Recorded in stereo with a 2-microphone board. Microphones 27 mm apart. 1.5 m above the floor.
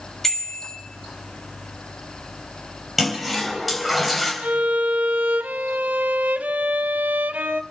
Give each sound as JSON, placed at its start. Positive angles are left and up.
{"t": 0.2, "sound": "a bicycle bell", "side_deg": 10, "distance_m": 6.0}
{"t": 3.0, "sound": "a toilet flushing", "side_deg": 0, "distance_m": 4.0}
{"t": 4.4, "sound": "a violin", "side_deg": -75, "distance_m": 0.7}